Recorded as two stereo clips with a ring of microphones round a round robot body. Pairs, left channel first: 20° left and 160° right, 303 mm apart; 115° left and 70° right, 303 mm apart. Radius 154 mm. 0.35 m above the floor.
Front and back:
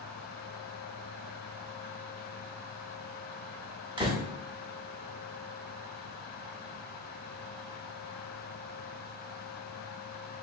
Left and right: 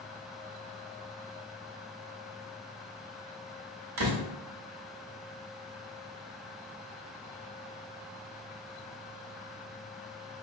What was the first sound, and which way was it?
A door slam, 85° right.